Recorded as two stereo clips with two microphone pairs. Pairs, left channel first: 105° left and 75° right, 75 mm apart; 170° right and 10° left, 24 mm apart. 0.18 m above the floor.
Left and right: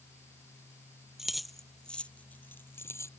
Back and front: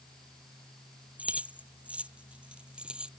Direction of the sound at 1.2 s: 10° left.